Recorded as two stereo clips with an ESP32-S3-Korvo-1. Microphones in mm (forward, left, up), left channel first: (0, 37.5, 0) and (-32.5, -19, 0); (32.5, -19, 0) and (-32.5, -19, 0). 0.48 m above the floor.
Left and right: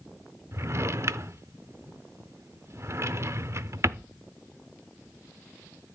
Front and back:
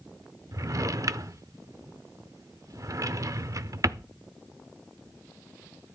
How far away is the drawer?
About 0.6 m.